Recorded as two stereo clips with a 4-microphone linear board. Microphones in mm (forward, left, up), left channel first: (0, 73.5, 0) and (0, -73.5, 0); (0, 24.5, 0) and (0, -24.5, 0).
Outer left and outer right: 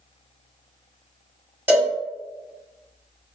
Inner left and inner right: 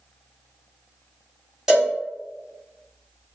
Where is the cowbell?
15° right (ahead or behind), 1.8 m.